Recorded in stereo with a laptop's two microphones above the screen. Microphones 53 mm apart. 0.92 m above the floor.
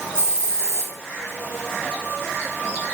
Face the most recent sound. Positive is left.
turn(degrees=65)  # may be behind; listen again after turning